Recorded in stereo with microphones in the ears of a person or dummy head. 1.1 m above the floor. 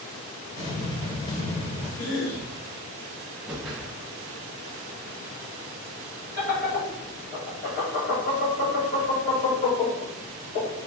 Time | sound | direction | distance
0.6 | an explosion | 40° left (ahead or behind) | 1.9 m
2.0 | a cough | 75° left (ahead or behind) | 1.3 m
3.5 | a whoosh | 5° right (ahead or behind) | 0.6 m
6.4 | laughter | 30° left (ahead or behind) | 1.4 m